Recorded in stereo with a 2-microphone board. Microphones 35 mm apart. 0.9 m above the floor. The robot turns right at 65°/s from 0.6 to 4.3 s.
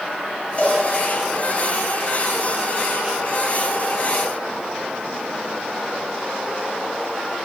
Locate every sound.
0.6 s a cowbell: 35° left (ahead or behind), 4 m; by 0.8 s 20° left (ahead or behind), 4 m